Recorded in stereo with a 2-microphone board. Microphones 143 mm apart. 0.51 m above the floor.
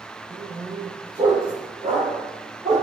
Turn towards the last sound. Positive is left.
turn(degrees=-40)  # may be behind; listen again after turning